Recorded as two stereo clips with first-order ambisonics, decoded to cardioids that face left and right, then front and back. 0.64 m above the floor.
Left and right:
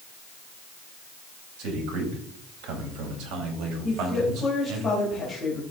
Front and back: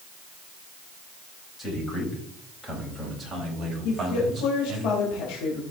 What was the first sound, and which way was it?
A man speaking, 75° right.